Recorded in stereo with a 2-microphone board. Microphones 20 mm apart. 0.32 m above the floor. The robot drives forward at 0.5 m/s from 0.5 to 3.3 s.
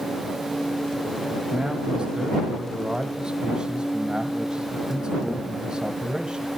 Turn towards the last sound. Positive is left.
turn(degrees=-45)  # may be behind; listen again after turning